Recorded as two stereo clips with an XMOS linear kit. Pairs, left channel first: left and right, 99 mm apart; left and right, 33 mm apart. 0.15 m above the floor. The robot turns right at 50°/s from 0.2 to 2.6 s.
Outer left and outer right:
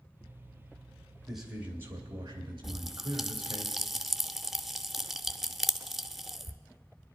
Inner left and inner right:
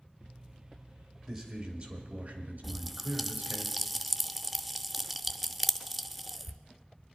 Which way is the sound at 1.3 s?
Straight behind.